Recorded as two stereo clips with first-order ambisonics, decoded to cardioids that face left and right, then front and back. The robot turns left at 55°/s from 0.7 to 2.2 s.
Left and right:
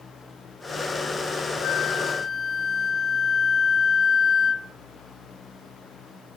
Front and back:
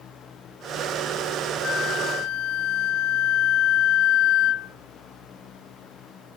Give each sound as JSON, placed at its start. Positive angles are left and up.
{"t": 1.6, "sound": "a flute", "azimuth_deg": 55, "distance_m": 0.5}